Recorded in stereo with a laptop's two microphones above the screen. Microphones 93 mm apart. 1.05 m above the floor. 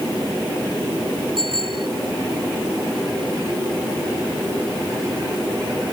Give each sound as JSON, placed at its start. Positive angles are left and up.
{"t": 1.4, "sound": "a bicycle bell", "side_deg": -60}